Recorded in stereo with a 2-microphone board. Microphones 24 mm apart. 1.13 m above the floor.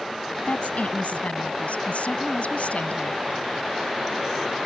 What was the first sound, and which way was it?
A woman speaking, 80° left.